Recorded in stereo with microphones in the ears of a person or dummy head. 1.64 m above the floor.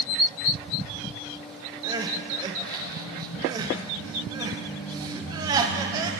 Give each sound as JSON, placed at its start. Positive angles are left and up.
{"t": 1.8, "sound": "crying", "side_deg": -20, "distance_m": 1.0}